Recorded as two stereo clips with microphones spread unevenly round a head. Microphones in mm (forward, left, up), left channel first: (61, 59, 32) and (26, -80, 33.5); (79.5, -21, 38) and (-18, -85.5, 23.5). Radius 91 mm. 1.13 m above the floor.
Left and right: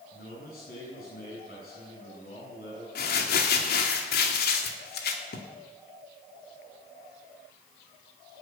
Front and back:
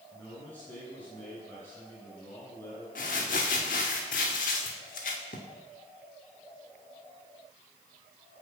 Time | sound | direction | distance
0.1 | a man speaking | 115° left | 9.5 m
3.0 | crumpling | 70° left | 2.0 m